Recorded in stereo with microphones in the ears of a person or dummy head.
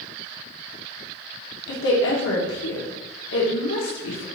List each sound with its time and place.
1.7 s a woman speaking: 75° left (ahead or behind), 1.3 m